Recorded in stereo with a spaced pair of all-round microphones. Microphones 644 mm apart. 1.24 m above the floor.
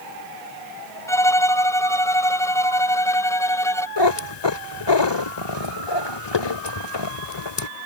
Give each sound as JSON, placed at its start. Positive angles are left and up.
{"t": 1.1, "sound": "a violin", "side_deg": 5}
{"t": 4.0, "sound": "a cat meowing", "side_deg": 40}